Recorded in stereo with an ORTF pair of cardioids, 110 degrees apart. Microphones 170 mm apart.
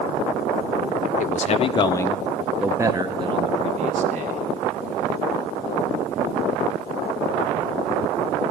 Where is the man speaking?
50° left, 0.8 m; by 4.4 s 50° right, 1.4 m.